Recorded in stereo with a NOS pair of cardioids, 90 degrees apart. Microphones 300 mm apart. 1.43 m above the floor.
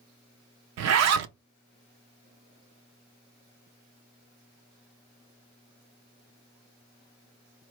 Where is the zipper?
60° right, 0.5 m.